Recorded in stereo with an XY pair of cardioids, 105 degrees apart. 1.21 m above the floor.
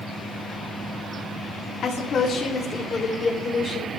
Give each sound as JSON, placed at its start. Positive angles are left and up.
{"t": 1.8, "sound": "a woman speaking", "azimuth_deg": 60, "distance_m": 2.5}